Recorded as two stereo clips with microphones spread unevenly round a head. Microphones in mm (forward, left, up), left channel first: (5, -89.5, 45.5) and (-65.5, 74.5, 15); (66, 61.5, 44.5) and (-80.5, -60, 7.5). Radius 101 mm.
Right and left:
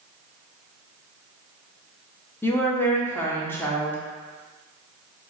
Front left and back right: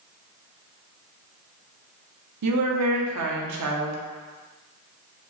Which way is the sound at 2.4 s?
140° right.